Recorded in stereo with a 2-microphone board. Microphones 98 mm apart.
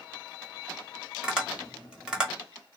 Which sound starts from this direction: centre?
Tapping, at 1.2 s.